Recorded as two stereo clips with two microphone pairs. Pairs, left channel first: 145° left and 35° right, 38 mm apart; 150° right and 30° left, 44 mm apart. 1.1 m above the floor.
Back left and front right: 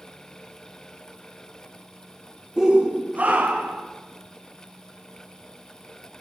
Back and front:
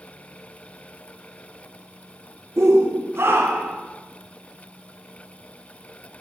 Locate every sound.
2.6 s a shout: 35° left, 0.8 m; by 3.8 s 5° left, 1.6 m